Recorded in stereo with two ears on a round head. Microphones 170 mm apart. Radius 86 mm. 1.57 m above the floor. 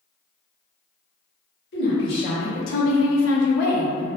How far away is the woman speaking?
About 1.1 m.